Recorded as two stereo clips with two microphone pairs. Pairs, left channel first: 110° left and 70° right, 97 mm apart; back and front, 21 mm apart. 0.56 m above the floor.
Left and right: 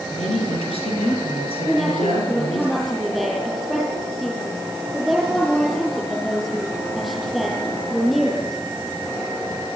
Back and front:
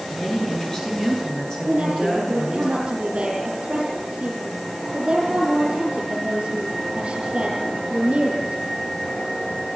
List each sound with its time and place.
0.1 s a woman speaking: 125° left, 8 m; by 2.7 s 115° left, 8.5 m
1.7 s a woman speaking: 25° left, 9.5 m